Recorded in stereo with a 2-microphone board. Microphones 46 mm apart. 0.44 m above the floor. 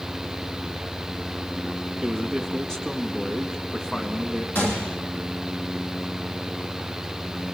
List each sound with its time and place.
2.0 s a man speaking: 10° left (ahead or behind), 3.5 m
4.5 s a gunshot: 50° left (ahead or behind), 4 m